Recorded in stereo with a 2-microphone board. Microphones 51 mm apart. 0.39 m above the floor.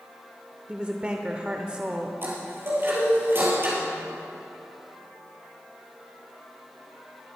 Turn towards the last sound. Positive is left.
turn(degrees=-45)  # may be behind; listen again after turning